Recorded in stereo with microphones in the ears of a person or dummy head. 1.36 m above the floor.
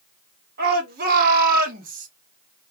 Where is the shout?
50° right (ahead or behind), 1.6 m; by 2.1 s 40° right (ahead or behind), 0.7 m.